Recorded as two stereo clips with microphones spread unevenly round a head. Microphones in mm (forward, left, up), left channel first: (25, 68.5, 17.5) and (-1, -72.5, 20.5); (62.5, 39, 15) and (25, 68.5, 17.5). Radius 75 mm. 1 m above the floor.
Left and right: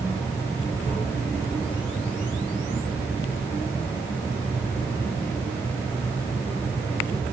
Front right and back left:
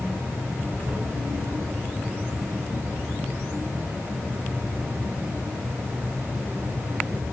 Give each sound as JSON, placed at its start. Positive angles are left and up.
{"t": 0.0, "sound": "an insect", "azimuth_deg": 155, "distance_m": 4.0}